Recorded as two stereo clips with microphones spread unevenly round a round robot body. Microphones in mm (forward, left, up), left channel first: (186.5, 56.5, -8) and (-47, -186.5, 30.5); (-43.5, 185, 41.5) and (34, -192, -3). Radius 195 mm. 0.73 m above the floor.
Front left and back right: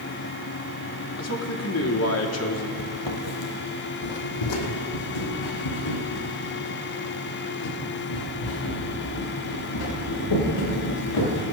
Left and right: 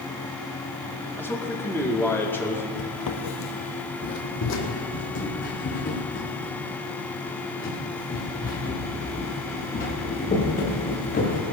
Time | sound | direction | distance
1.2 | a man speaking | 15° left | 1.7 m
2.8 | footsteps | 90° left | 1.1 m